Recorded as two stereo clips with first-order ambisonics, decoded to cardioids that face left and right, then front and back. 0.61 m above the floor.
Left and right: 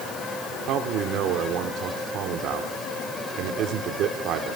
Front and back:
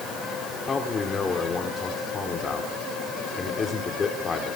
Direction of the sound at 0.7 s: 65° right.